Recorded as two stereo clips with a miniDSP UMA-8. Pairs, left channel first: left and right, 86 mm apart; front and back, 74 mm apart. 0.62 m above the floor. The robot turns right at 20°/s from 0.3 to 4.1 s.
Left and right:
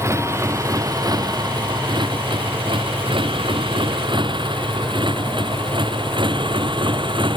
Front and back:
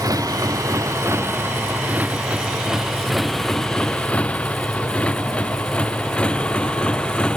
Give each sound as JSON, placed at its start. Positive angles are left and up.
{"t": 0.0, "sound": "a motorcycle", "azimuth_deg": -145}